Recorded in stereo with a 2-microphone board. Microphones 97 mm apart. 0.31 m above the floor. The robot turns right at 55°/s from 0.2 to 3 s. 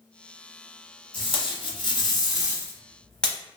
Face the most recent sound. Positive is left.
turn(degrees=170)